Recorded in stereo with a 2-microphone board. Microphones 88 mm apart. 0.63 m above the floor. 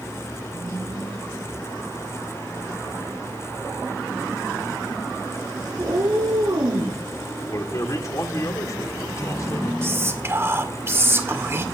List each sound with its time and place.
5.8 s a cat meowing: 50° right (ahead or behind), 5.5 m
7.5 s a man speaking: 40° left (ahead or behind), 2 m
9.8 s whispering: 30° right (ahead or behind), 2.0 m